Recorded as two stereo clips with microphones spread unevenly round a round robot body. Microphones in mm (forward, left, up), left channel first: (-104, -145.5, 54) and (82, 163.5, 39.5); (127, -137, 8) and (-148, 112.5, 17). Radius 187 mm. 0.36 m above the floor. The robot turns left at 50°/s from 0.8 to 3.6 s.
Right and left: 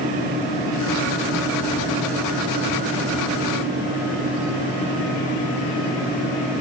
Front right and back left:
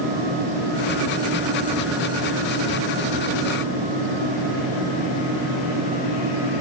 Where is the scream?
No scream in this recording.